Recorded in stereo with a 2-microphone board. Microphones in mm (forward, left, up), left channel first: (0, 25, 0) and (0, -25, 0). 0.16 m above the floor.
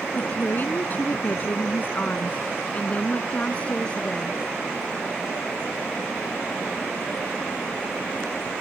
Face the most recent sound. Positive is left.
turn(degrees=20)  # may be behind; listen again after turning